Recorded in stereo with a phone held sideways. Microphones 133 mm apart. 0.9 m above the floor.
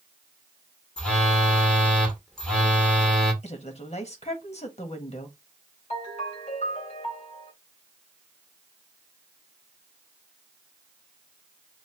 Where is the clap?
No clap in this recording.